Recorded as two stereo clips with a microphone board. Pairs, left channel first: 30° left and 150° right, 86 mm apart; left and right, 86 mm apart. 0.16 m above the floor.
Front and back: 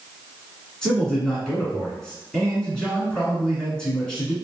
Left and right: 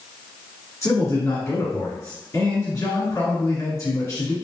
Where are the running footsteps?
I don't hear running footsteps.